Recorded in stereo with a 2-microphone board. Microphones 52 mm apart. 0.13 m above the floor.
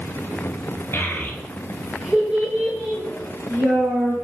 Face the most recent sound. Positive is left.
turn(degrees=-60)  # may be behind; listen again after turning